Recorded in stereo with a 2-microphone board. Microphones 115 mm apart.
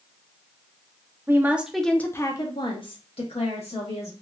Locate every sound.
1.3 s a woman speaking: 20° right (ahead or behind), 0.6 m; by 4.1 s 70° left (ahead or behind), 1.2 m